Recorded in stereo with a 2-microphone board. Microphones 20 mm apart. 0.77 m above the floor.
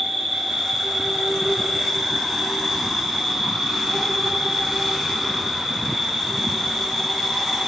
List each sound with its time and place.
0.0 s an insect: 5° right (ahead or behind), 2 m